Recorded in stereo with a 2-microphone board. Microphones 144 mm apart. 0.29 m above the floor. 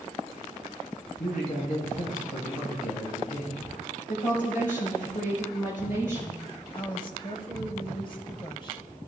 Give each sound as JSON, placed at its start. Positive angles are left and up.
{"t": 1.2, "sound": "a man speaking", "side_deg": 75, "distance_m": 4.5}
{"t": 4.1, "sound": "a woman speaking", "side_deg": 65, "distance_m": 4.5}
{"t": 6.7, "sound": "a woman speaking", "side_deg": 35, "distance_m": 1.5}